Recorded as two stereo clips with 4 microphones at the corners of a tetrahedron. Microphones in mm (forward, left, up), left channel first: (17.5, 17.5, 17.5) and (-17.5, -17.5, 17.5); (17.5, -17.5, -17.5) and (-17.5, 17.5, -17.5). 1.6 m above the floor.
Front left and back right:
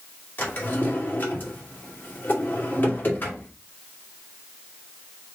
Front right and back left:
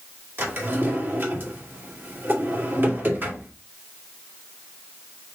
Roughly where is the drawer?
Left.